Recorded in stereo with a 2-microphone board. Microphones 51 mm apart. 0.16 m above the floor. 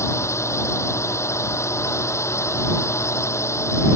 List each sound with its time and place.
0.0 s a drone: 65° left (ahead or behind)